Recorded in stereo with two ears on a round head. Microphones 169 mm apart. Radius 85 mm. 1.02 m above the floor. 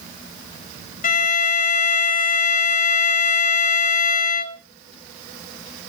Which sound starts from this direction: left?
A violin, at 1.0 s.